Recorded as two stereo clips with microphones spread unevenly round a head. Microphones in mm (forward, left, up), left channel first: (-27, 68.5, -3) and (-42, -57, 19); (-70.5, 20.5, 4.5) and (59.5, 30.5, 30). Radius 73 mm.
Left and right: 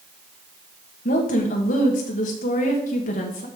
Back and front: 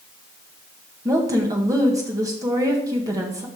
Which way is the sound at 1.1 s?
75° left.